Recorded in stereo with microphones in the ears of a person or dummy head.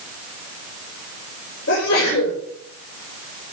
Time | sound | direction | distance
1.7 | a sneeze | 75° left (ahead or behind) | 6 m